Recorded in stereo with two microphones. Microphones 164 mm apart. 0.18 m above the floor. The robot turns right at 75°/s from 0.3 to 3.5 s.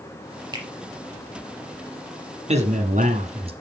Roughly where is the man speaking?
Behind right.